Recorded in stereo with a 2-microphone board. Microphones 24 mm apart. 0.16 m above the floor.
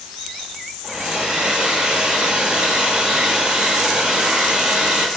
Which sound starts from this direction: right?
A hair dryer, at 0.8 s.